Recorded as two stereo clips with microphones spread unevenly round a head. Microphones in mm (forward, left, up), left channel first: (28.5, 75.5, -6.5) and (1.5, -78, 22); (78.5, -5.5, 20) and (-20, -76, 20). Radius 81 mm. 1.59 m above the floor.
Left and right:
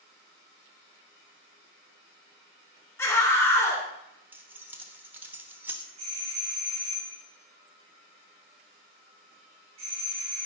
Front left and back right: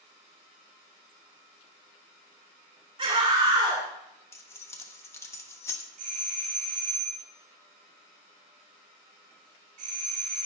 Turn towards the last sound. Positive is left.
turn(degrees=-155)